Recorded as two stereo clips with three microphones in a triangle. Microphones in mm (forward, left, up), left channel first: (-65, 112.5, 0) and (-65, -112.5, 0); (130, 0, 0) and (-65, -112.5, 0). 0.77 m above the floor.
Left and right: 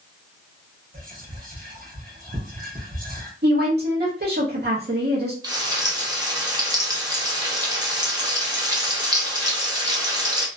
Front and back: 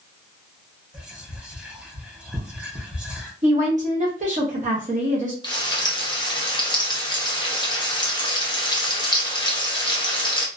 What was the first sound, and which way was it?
Whispering, 65° right.